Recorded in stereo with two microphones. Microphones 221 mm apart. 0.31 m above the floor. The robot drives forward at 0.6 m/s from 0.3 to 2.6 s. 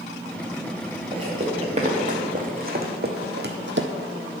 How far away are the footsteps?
About 3 m.